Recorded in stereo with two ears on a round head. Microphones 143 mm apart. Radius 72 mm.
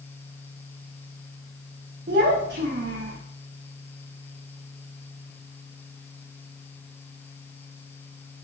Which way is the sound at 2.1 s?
60° right (ahead or behind).